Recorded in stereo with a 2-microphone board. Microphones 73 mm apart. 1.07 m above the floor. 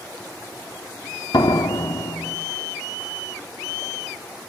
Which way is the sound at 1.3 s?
85° left.